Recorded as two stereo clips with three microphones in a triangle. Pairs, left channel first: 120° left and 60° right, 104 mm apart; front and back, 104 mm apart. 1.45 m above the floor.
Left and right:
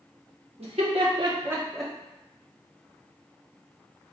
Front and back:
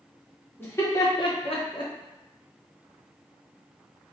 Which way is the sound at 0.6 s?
70° right.